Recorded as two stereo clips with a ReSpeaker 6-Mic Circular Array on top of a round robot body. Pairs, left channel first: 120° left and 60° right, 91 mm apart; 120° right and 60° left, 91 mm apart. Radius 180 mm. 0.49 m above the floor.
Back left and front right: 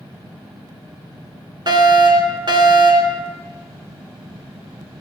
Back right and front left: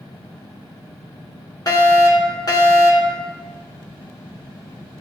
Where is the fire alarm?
80° right, 3.5 m.